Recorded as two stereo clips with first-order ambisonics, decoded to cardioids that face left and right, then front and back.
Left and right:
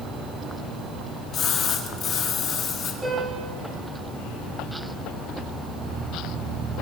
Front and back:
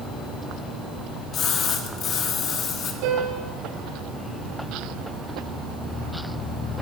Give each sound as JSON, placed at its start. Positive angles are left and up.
{"t": 1.3, "sound": "a splash", "azimuth_deg": 45, "distance_m": 1.6}
{"t": 3.0, "sound": "a piano", "azimuth_deg": -170, "distance_m": 8.0}